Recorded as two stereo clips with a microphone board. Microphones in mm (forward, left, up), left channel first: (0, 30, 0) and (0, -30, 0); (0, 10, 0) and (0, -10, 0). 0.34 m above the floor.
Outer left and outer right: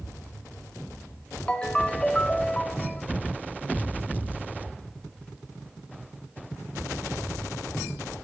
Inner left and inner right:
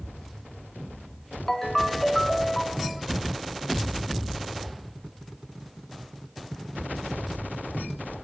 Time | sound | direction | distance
1.5 | a ringtone | 20° left (ahead or behind) | 0.7 m